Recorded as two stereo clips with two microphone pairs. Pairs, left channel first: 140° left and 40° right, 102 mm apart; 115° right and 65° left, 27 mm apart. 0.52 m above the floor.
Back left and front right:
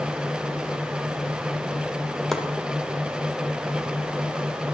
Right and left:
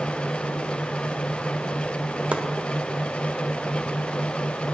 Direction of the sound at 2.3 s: 55° left.